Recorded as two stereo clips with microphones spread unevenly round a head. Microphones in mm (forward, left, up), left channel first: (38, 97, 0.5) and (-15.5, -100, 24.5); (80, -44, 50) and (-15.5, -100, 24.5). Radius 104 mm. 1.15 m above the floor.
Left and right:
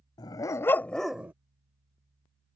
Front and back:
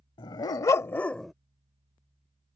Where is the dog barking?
Straight ahead; by 1.3 s 40° right.